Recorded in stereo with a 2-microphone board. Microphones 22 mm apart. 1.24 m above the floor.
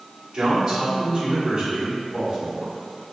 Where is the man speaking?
35° right (ahead or behind), 1.9 m.